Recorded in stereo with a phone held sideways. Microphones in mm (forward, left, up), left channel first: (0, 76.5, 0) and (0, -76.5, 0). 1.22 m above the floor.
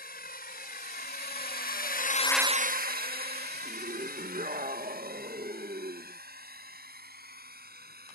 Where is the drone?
85° left; by 8.2 s 90° right.